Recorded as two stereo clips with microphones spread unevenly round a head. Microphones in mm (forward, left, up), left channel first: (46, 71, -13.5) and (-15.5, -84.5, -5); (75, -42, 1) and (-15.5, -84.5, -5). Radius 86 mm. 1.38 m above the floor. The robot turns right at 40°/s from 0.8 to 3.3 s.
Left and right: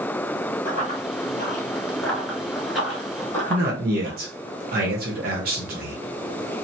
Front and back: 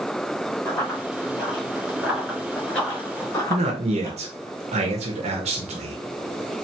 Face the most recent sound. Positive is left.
turn(degrees=-150)